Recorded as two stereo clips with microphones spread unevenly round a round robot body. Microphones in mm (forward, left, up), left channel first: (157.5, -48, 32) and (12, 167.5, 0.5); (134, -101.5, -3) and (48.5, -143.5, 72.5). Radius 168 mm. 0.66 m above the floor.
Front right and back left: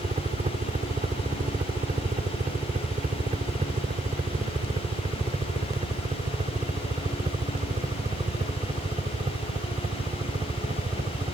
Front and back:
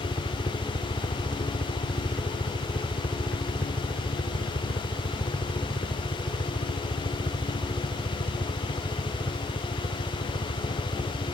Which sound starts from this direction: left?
A helicopter, at 0.0 s.